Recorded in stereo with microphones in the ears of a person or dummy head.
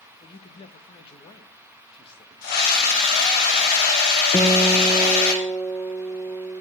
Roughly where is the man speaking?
Left.